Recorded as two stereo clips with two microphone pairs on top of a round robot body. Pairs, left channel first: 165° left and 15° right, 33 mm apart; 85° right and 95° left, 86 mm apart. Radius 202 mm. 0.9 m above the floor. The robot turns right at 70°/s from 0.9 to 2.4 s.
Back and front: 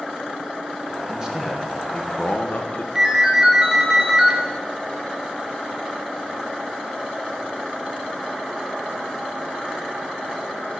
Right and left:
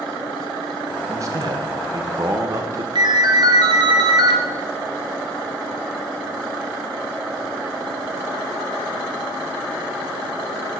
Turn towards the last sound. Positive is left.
turn(degrees=55)